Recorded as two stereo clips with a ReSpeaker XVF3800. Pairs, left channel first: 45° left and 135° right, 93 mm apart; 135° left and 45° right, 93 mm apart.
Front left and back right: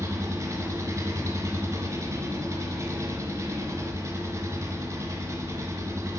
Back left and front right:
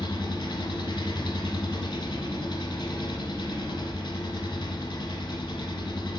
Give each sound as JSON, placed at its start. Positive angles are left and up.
{"t": 0.0, "sound": "an engine running", "azimuth_deg": 170, "distance_m": 1.0}